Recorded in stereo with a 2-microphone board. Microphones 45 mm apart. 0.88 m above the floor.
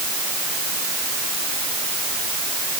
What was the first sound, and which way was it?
Only background noise.